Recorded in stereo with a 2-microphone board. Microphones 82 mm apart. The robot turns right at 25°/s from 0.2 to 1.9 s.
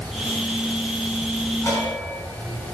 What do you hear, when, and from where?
1.6 s a bell: 35° left (ahead or behind), 3 m; by 2.6 s 40° left (ahead or behind), 3 m